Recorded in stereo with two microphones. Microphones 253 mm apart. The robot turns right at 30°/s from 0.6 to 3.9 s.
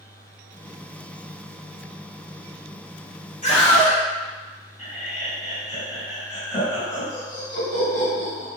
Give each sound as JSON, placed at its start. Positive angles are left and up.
{"t": 3.4, "sound": "a scream", "side_deg": 30, "distance_m": 1.1}
{"t": 4.8, "sound": "laughter", "side_deg": 30, "distance_m": 1.6}